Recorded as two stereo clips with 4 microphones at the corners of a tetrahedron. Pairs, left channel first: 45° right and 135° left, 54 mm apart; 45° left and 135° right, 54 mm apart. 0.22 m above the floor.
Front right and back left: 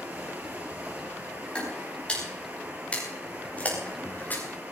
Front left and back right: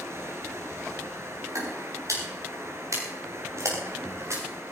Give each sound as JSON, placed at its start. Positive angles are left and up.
{"t": 0.0, "sound": "running water", "azimuth_deg": -170, "distance_m": 3.0}
{"t": 1.6, "sound": "footsteps", "azimuth_deg": -115, "distance_m": 8.5}